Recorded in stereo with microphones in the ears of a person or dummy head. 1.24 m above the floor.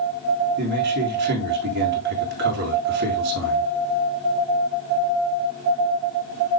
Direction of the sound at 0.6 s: 55° right (ahead or behind).